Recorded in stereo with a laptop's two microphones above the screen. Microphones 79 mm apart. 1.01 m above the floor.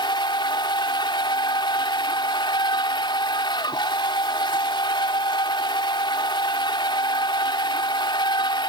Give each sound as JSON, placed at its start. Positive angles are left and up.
{"t": 0.0, "sound": "a machine running", "side_deg": 75}